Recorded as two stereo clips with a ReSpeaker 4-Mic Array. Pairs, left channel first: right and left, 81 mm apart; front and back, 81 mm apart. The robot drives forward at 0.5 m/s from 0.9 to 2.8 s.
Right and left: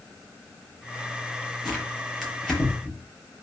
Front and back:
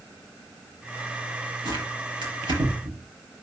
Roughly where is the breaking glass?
No breaking glass in this recording.